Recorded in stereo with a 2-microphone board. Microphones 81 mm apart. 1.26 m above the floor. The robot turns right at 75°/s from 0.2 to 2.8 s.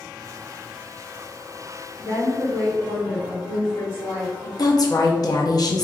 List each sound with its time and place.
2.0 s a woman speaking: 40° left, 1.4 m; by 4.5 s 100° left, 1.4 m
4.6 s a woman speaking: 55° left (ahead or behind), 0.5 m